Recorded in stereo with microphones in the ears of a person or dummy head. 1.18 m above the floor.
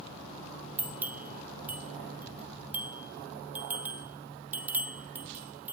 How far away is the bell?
About 2 m.